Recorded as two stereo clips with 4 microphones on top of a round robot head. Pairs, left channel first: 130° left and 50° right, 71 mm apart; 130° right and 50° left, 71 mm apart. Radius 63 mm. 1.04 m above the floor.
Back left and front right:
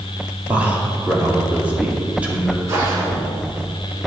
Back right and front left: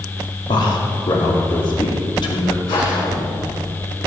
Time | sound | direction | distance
0.5 | a man speaking | 120° right | 2.5 m
2.7 | a whoosh | 105° right | 3.5 m